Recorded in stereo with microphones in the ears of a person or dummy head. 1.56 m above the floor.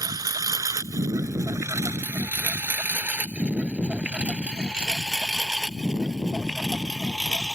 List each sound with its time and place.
0.0 s a lawn mower: 25° right (ahead or behind); by 7.5 s centre (ahead or behind)